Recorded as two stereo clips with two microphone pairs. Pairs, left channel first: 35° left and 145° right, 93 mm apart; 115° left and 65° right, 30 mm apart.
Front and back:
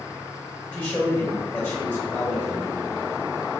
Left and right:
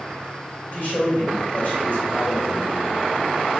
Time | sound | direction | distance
0.7 | a man speaking | 95° left | 1.6 m